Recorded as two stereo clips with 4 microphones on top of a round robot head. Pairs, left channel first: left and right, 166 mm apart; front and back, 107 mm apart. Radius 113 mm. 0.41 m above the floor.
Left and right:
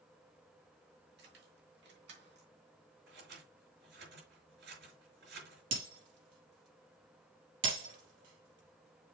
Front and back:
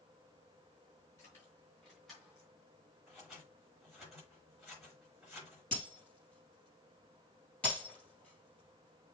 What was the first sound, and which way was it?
Keys jangling, 70° right.